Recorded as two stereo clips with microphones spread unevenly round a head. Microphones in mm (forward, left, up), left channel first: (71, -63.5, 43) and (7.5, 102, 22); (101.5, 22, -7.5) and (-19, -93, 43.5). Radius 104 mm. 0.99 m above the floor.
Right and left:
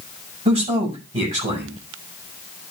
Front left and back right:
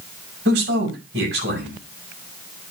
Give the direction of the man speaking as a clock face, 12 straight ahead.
6 o'clock.